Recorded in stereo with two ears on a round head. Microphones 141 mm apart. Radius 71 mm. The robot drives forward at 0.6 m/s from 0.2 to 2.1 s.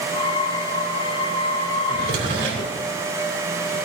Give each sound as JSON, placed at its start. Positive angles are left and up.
{"t": 1.9, "sound": "a drawer", "side_deg": -80, "distance_m": 3.5}